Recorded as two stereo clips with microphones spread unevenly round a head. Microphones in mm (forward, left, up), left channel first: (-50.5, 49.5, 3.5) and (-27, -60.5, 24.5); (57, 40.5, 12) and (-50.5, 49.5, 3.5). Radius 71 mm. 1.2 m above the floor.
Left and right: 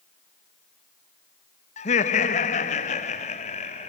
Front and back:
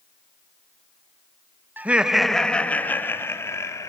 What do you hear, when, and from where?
1.8 s laughter: 105° left, 1.6 m; by 3.9 s 60° left, 3.5 m